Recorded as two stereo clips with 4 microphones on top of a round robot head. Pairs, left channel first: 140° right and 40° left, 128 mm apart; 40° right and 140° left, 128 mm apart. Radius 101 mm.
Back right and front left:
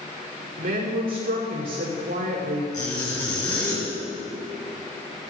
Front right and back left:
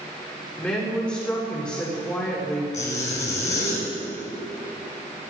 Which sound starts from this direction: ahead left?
A woman speaking, at 0.6 s.